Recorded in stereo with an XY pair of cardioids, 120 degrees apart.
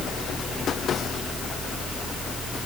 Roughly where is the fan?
Ahead right.